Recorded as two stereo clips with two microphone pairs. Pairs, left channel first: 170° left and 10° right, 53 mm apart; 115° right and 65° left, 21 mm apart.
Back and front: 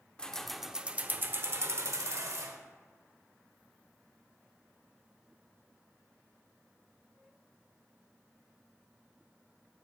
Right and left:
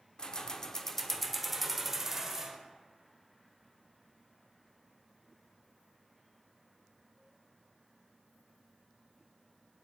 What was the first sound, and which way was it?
Keys jangling, 130° right.